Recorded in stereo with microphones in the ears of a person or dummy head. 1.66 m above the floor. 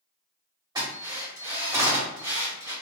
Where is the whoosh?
I don't hear a whoosh.